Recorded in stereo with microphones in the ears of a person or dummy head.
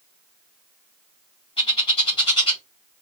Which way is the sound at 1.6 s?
30° left (ahead or behind).